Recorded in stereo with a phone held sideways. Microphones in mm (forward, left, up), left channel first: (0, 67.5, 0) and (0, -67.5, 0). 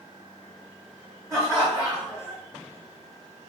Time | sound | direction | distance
1.3 | laughter | 35° left (ahead or behind) | 1.6 m